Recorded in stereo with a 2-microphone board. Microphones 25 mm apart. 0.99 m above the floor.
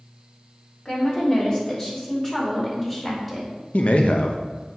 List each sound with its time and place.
0.8 s a woman speaking: 35° left (ahead or behind), 2.5 m; by 3.5 s 10° left (ahead or behind), 4 m
3.7 s a man speaking: 60° left (ahead or behind), 0.7 m